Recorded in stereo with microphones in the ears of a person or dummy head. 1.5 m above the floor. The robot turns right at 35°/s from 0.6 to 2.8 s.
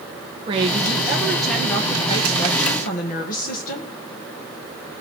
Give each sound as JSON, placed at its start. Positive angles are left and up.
{"t": 0.5, "sound": "a woman speaking", "azimuth_deg": -30, "distance_m": 1.9}